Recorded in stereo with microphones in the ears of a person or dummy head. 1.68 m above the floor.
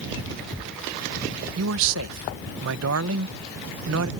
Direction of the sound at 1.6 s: 75° right (ahead or behind).